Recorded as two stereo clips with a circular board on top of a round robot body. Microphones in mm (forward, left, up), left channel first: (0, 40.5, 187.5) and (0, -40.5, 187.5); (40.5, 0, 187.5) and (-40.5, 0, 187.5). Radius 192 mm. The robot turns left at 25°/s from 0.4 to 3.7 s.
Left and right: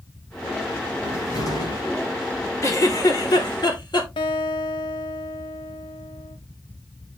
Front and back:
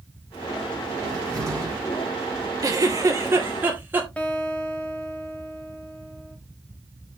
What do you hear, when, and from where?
1.0 s a cupboard door: 145° left, 5 m; by 1.8 s 130° left, 5 m
2.6 s a giggle: 140° left, 2.5 m; by 4.1 s 115° left, 2.5 m
4.2 s a guitar: 75° left, 0.8 m